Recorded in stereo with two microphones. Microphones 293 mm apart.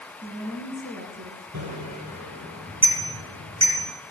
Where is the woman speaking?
30° right (ahead or behind), 5 m.